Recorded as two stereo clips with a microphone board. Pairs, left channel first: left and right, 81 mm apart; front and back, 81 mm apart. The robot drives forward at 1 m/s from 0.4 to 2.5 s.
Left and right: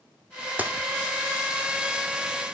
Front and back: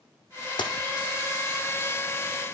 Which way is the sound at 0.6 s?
20° right.